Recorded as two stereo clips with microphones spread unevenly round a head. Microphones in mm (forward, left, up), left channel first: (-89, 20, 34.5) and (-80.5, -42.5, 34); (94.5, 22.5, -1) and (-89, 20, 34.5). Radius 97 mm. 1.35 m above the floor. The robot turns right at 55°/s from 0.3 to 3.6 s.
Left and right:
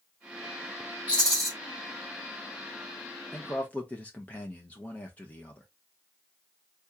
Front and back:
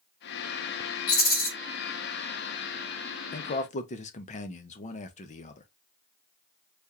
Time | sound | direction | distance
1.1 | a rattle | 20° right | 1.2 m
3.3 | a man speaking | 15° left | 0.7 m